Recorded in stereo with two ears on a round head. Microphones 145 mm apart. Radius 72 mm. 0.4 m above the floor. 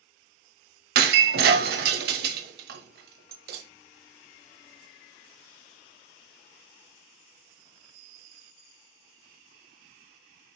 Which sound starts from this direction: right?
Breaking glass, at 0.9 s.